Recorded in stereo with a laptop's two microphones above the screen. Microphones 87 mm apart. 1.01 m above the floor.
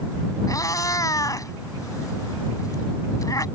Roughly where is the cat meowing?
Left.